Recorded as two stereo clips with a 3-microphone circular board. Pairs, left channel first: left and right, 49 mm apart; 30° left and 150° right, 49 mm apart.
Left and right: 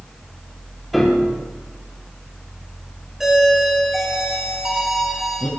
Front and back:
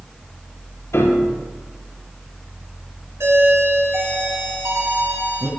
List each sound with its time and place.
0.9 s a piano: straight ahead, 5 m
3.2 s a doorbell: 175° right, 6 m